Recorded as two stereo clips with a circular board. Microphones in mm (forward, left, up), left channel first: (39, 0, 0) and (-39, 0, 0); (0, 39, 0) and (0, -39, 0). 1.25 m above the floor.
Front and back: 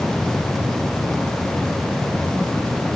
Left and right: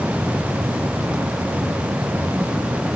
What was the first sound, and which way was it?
Only background noise.